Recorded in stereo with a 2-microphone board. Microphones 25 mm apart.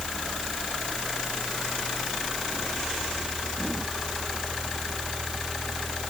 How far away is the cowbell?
No cowbell in this recording.